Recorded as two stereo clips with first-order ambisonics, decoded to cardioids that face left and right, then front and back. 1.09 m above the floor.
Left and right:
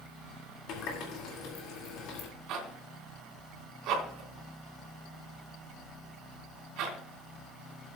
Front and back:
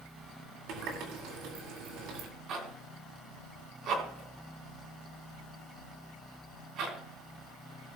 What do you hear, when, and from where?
0.7 s a running tap: 135° left, 2 m
2.5 s a zipper: 130° right, 3 m